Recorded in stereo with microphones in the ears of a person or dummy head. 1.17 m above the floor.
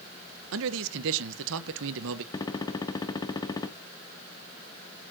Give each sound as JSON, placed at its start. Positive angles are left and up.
{"t": 0.5, "sound": "a man speaking", "side_deg": -65, "distance_m": 0.8}
{"t": 2.3, "sound": "a gunshot", "side_deg": 15, "distance_m": 0.6}